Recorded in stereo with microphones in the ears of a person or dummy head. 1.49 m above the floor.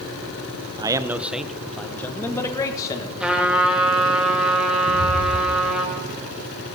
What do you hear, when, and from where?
0.8 s a man speaking: 20° right (ahead or behind), 0.9 m; by 3.1 s 30° left (ahead or behind), 1.7 m
3.2 s a trumpet: centre (ahead or behind), 3 m
4.9 s footsteps: 45° left (ahead or behind), 3.5 m; by 6.7 s 60° left (ahead or behind), 5 m